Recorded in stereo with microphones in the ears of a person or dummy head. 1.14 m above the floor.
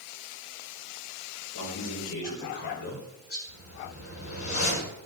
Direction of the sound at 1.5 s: 60° left (ahead or behind).